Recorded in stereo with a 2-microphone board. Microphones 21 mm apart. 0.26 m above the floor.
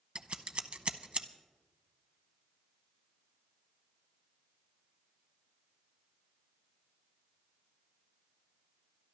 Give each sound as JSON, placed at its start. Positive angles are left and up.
{"t": 0.1, "sound": "scissors", "side_deg": -60, "distance_m": 0.6}